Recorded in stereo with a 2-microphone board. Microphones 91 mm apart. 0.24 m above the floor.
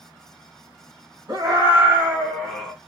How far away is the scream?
About 1.9 m.